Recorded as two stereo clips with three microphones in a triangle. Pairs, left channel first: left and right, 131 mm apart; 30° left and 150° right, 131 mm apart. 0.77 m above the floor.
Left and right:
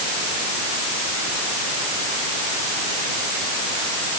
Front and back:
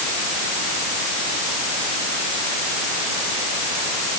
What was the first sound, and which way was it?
Only background noise.